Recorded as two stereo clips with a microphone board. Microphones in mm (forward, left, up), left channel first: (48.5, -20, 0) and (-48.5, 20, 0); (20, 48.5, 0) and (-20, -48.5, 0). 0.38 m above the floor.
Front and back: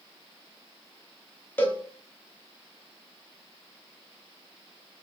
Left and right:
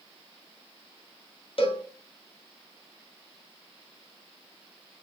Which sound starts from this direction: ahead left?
A cowbell, at 1.6 s.